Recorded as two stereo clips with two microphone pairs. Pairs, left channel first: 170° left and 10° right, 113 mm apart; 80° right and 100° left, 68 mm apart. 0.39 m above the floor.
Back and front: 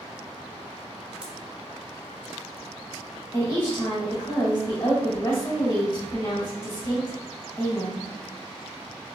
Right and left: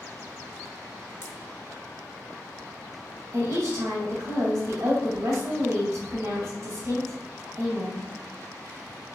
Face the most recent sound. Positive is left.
turn(degrees=110)